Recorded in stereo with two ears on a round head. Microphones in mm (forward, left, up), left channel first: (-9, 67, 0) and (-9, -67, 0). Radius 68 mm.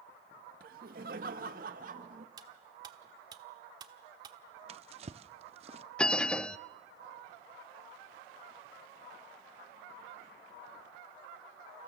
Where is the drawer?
40° right (ahead or behind), 0.6 m.